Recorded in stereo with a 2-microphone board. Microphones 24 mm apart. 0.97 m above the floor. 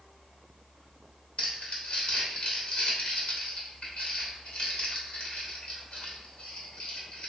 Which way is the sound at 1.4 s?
50° left (ahead or behind).